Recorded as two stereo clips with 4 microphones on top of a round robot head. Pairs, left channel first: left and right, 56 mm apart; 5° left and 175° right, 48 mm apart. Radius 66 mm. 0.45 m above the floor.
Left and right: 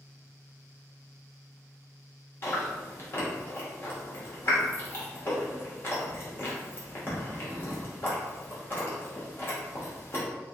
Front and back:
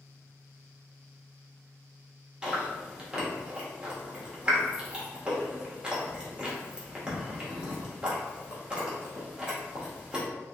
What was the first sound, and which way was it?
Chewing, 120° left.